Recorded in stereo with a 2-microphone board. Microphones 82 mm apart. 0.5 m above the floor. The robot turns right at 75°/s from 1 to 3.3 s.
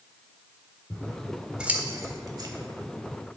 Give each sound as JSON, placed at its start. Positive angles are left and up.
{"t": 0.9, "sound": "scissors", "side_deg": 25, "distance_m": 1.1}